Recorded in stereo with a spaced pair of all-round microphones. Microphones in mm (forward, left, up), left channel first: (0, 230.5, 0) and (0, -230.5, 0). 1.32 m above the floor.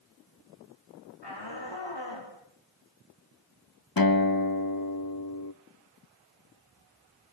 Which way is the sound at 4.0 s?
50° left (ahead or behind).